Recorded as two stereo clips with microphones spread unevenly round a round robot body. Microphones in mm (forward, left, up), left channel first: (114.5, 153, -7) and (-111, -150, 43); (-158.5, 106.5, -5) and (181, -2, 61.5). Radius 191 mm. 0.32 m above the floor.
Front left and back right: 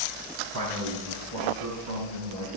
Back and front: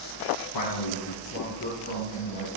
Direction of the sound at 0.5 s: 175° right.